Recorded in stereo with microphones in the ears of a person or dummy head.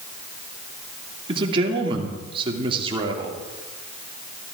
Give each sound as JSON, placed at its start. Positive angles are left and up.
{"t": 1.3, "sound": "a man speaking", "side_deg": -35, "distance_m": 2.5}